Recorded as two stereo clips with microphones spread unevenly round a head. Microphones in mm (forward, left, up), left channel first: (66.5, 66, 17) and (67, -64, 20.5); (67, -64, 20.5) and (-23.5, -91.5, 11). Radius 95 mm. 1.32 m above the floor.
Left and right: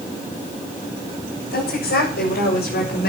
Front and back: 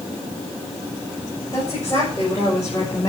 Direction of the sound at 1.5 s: 90° left.